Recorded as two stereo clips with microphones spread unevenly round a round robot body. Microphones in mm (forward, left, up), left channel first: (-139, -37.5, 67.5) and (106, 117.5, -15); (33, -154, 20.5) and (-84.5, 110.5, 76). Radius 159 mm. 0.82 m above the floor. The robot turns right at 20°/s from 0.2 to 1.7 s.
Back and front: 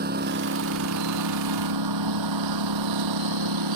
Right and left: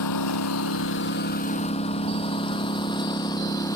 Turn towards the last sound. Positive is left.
turn(degrees=15)